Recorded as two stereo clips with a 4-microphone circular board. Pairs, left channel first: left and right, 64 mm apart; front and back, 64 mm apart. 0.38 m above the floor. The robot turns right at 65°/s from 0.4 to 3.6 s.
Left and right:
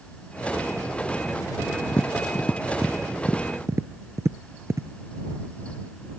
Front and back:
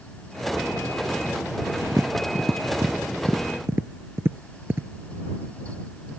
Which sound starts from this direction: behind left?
Tapping, at 1.9 s.